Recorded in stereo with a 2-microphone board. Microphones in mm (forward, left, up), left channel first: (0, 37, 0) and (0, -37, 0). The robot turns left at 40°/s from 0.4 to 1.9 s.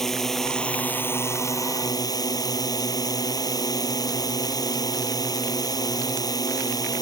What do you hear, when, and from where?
0.0 s a drone: 175° left; by 7.0 s 115° left